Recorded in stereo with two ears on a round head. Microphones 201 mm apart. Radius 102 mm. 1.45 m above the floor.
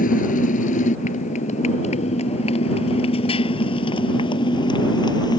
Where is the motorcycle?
35° left (ahead or behind); by 5.4 s 20° left (ahead or behind).